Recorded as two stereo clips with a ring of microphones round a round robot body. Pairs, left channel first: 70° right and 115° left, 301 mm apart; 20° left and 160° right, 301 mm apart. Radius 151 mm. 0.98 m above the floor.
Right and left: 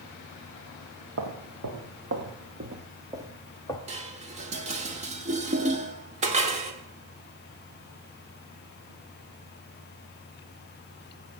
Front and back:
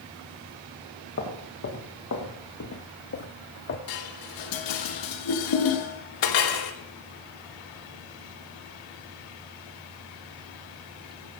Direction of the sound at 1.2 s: 70° left.